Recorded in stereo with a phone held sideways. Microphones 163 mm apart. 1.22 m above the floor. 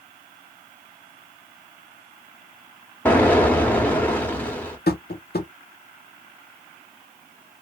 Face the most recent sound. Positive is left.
turn(degrees=70)  # may be behind; listen again after turning